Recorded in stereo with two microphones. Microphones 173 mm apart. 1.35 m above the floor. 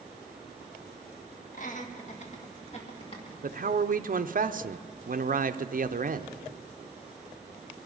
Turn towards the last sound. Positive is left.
turn(degrees=-50)  # may be behind; listen again after turning